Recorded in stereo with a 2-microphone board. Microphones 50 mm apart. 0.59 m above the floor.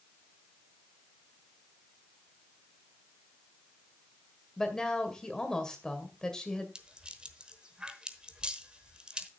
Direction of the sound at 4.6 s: 15° left (ahead or behind).